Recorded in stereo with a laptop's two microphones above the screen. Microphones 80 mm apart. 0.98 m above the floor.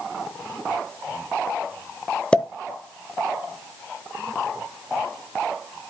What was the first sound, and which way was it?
A pop, 15° left (ahead or behind).